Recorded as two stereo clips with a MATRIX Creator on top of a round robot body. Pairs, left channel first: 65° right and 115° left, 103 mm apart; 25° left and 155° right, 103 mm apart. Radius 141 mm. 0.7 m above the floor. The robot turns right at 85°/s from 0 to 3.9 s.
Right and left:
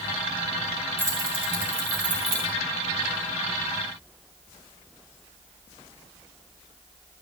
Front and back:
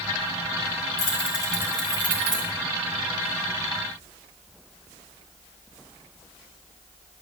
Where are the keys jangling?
40° left, 6 m; by 2.5 s 170° left, 6 m.